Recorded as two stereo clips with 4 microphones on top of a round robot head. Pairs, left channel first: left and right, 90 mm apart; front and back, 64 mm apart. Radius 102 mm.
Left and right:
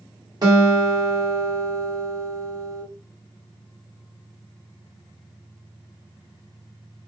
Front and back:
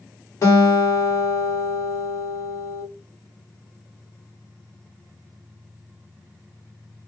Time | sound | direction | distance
0.4 | a guitar | 45° right | 1.4 m